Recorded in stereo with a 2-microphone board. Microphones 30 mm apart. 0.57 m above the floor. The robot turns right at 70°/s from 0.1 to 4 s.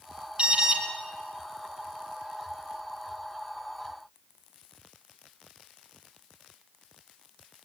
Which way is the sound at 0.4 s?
35° right (ahead or behind).